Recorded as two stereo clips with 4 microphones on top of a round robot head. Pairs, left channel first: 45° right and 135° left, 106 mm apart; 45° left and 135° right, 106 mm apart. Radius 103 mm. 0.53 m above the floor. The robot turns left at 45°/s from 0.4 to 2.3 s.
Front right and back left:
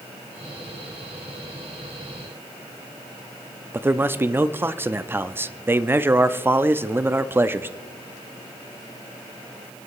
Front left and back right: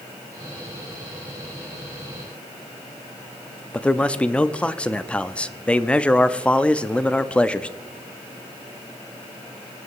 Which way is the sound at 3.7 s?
110° left.